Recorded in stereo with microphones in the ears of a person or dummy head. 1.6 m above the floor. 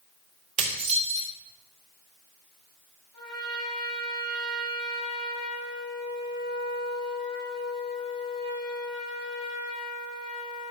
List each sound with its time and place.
0.6 s dishes clattering: 35° right (ahead or behind), 2 m
3.1 s a trumpet: 25° left (ahead or behind), 5 m